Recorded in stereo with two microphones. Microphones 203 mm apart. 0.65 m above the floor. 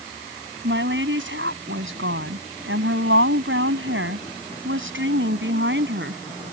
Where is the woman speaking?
65° right (ahead or behind).